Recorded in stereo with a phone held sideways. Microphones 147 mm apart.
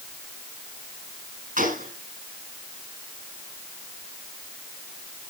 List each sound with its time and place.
1.6 s a gunshot: 80° right, 5.5 m